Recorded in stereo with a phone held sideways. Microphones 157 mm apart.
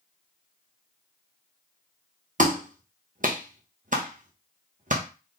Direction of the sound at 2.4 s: 55° right (ahead or behind).